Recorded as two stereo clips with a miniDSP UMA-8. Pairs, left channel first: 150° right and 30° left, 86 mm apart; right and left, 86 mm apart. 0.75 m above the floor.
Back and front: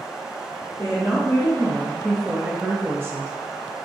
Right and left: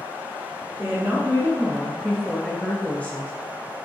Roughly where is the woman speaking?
Behind.